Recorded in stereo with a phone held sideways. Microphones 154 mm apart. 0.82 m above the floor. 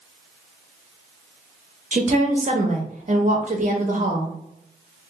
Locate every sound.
1.9 s a woman speaking: 50° right (ahead or behind), 0.9 m